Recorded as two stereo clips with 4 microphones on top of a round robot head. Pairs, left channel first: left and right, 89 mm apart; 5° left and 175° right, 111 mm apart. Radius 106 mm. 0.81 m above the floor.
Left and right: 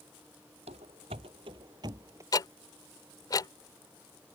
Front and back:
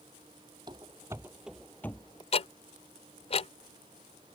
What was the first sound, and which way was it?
Running footsteps, 115° right.